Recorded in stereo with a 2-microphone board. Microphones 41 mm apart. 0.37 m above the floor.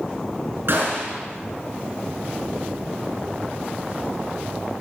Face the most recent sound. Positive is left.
turn(degrees=-60)  # may be behind; listen again after turning